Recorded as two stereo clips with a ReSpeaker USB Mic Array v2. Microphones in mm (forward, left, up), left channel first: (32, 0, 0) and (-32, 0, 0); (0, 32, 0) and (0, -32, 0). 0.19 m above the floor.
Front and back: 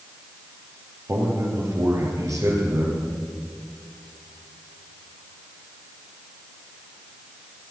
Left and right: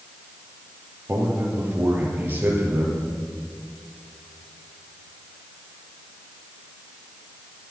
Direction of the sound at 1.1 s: 150° right.